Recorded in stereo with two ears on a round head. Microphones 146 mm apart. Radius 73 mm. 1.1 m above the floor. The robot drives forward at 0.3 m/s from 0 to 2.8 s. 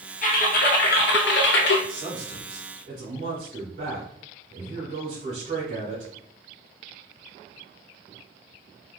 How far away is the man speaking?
About 1.8 m.